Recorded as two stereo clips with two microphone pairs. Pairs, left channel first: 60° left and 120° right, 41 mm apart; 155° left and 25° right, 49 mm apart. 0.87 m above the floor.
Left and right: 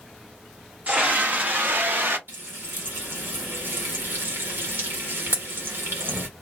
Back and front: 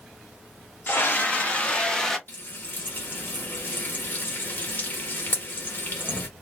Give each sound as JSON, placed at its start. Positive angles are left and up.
{"t": 0.9, "sound": "a scream", "azimuth_deg": -170, "distance_m": 1.5}
{"t": 2.3, "sound": "frying", "azimuth_deg": -155, "distance_m": 1.3}